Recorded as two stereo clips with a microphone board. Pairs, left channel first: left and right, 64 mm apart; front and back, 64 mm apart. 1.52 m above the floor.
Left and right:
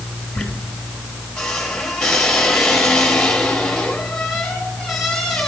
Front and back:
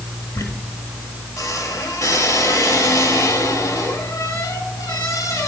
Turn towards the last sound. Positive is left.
turn(degrees=10)